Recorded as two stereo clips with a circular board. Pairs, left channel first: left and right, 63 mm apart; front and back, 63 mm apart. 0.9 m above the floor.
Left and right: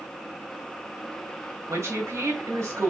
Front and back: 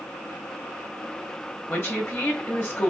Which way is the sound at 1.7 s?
50° right.